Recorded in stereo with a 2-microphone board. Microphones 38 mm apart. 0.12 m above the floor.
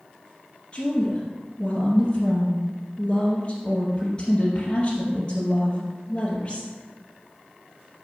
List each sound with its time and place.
0.7 s a woman speaking: 25° left (ahead or behind), 2 m